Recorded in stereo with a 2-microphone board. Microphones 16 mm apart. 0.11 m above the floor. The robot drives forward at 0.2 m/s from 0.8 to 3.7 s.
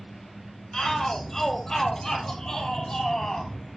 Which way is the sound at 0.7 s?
40° left (ahead or behind).